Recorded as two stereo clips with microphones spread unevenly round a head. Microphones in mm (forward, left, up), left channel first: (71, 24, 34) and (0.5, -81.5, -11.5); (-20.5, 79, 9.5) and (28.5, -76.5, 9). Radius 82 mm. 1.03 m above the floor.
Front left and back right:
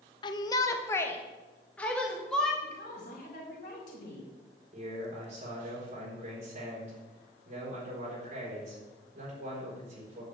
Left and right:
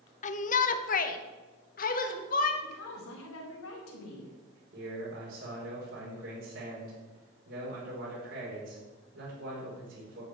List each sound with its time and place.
0.2 s a shout: 125° left, 0.9 m; by 2.5 s 150° left, 2 m
2.6 s a woman speaking: 105° left, 4 m
4.7 s a man speaking: 90° right, 4.5 m